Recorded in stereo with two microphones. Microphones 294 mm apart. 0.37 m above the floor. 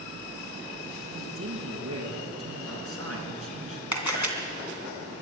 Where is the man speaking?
50° right (ahead or behind), 4 m.